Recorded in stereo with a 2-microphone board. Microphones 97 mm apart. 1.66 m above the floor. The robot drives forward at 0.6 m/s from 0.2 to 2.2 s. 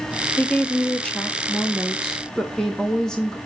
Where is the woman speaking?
15° left (ahead or behind), 0.7 m; by 3.4 s 5° left (ahead or behind), 1.7 m.